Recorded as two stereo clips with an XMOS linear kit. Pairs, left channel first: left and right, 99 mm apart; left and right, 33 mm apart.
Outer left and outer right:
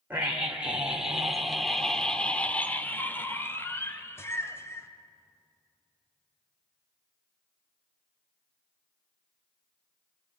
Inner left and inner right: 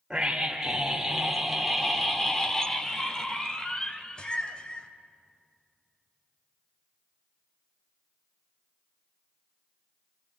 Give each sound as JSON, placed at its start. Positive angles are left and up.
{"t": 0.1, "sound": "a scream", "side_deg": -15, "distance_m": 1.8}